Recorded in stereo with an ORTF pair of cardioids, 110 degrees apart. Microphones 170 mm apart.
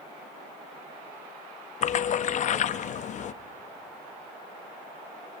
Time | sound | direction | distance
1.8 | a splash | 50° left | 0.6 m